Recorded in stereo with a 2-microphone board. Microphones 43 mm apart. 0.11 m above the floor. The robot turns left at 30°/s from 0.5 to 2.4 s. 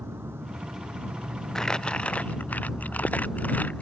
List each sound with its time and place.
0.0 s an insect: 105° right; by 3.8 s 160° right
1.6 s crumpling: 15° left (ahead or behind); by 3.8 s 40° left (ahead or behind)